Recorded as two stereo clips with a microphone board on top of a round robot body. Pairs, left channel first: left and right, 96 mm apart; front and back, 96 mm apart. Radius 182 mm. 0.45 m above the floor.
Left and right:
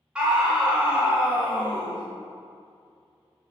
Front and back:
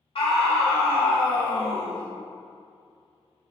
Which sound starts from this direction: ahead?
A scream, at 0.1 s.